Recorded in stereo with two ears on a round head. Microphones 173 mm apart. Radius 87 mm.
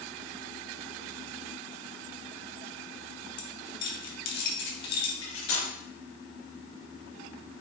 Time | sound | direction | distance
3.4 | keys jangling | 60° left (ahead or behind) | 1.9 m
5.2 | cutlery clinking | 70° left (ahead or behind) | 4.5 m